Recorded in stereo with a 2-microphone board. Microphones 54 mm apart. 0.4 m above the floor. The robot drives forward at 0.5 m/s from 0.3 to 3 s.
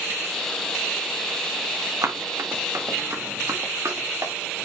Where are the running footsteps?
80° right, 2 m; by 4.3 s 70° right (ahead or behind), 3 m.